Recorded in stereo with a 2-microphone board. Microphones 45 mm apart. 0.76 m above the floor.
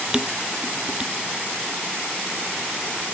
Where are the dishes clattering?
20° right (ahead or behind).